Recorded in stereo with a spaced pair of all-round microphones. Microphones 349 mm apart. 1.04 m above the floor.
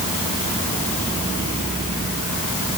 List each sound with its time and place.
Only background noise.